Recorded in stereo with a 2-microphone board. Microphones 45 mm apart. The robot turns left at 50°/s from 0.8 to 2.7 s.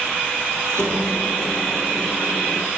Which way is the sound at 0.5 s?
85° right.